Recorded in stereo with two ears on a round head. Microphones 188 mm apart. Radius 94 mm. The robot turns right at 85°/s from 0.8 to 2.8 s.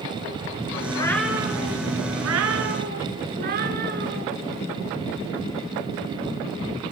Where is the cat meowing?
155° left, 3.5 m; by 4.3 s 45° right, 3.5 m.